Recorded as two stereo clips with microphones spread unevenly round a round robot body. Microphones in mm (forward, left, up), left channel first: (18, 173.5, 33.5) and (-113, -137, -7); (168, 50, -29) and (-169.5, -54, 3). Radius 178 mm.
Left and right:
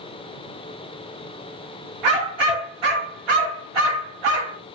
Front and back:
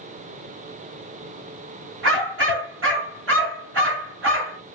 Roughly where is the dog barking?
Right.